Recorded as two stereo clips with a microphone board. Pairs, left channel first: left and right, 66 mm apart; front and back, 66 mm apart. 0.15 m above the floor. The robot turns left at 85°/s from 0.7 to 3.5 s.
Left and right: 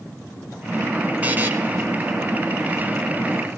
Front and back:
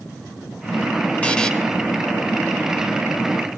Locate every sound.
1.2 s a buzzer: 50° right, 1.9 m; by 1.5 s 75° right, 1.9 m